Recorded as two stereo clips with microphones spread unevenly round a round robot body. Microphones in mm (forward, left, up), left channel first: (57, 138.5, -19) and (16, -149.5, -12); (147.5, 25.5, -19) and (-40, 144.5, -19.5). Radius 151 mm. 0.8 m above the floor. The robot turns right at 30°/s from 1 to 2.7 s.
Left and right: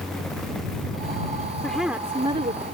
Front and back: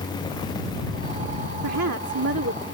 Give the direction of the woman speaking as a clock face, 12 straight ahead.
6 o'clock.